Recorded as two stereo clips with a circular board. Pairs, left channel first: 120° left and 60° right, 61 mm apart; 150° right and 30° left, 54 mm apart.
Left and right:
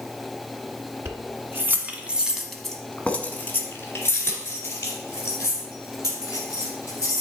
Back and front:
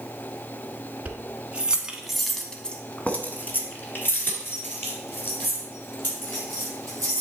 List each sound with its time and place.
1.1 s keys jangling: 25° right, 1.5 m; by 7.2 s 165° left, 4.5 m